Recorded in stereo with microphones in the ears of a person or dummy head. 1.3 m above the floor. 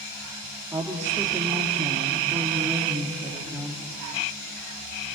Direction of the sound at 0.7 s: 15° right (ahead or behind).